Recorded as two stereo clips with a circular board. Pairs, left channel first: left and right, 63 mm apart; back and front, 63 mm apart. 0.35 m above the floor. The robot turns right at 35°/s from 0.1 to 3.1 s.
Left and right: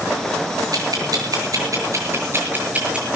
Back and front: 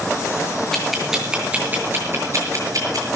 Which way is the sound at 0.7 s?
95° right.